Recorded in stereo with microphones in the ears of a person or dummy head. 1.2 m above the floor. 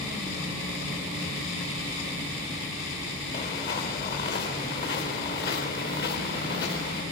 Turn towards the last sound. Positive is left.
turn(degrees=60)  # may be behind; listen again after turning